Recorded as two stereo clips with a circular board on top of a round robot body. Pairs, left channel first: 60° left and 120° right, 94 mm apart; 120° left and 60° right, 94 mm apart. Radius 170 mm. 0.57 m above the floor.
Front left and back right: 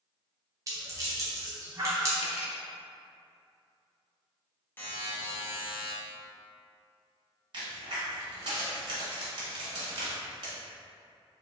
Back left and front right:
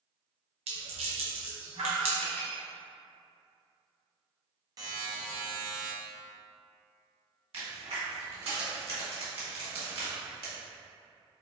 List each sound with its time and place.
0.7 s a rattle: 65° right, 0.7 m
2.2 s cutlery clinking: 50° left, 0.6 m
4.8 s a buzzer: 10° right, 1.0 m
7.5 s a crack: 75° right, 1.2 m